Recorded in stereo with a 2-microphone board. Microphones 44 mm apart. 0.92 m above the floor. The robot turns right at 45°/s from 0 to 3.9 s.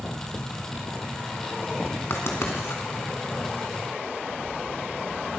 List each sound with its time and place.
2.1 s writing: 65° left (ahead or behind), 2.5 m; by 2.8 s 75° left (ahead or behind), 2.5 m